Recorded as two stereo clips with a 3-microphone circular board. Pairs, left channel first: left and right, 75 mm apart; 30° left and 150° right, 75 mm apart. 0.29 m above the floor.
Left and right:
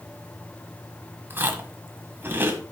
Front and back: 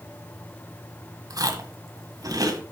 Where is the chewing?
145° right, 1.6 m.